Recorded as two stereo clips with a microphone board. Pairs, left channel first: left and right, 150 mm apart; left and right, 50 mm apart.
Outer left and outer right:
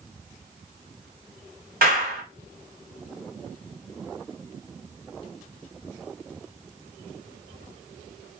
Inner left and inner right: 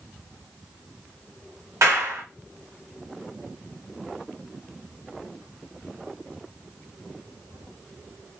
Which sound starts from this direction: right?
A clap, at 1.8 s.